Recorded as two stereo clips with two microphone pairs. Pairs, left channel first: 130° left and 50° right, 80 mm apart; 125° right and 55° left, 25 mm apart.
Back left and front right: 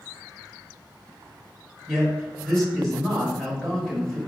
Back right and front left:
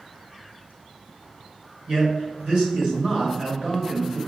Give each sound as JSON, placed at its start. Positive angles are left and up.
{"t": 1.9, "sound": "a man speaking", "azimuth_deg": 50, "distance_m": 1.8}